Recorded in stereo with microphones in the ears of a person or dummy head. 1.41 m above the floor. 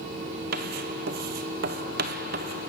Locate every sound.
0.5 s writing: 55° right (ahead or behind), 0.8 m